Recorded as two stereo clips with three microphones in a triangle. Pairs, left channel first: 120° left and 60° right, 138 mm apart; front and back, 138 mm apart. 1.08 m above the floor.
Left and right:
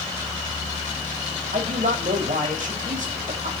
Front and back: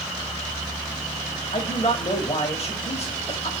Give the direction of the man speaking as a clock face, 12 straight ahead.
1 o'clock.